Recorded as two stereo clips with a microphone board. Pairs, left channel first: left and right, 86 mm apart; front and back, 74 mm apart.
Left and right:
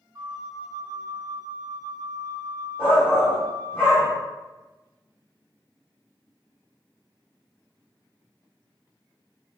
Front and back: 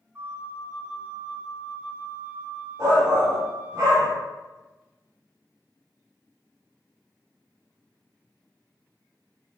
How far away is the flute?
About 0.5 m.